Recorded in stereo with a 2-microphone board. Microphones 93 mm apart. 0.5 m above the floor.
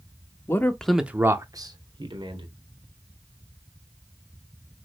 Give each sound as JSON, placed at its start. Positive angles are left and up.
{"t": 0.5, "sound": "a man speaking", "side_deg": 30, "distance_m": 0.7}